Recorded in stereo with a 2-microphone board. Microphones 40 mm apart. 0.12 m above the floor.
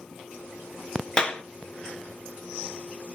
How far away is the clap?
About 1.3 m.